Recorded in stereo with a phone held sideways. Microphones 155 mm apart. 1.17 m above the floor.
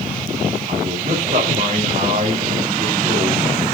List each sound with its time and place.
0.7 s a man speaking: 50° right (ahead or behind), 4 m